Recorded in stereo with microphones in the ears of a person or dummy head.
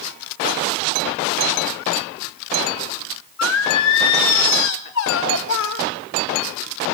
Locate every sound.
3.4 s singing: 70° left (ahead or behind), 2.5 m